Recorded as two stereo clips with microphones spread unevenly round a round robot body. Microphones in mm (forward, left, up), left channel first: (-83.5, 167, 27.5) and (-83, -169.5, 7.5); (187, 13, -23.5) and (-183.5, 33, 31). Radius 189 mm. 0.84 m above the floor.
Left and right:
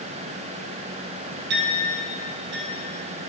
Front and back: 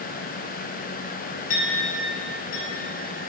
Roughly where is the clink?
Ahead right.